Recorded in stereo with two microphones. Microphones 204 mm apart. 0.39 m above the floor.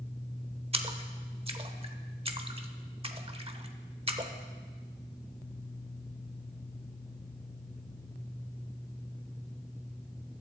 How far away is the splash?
About 0.8 m.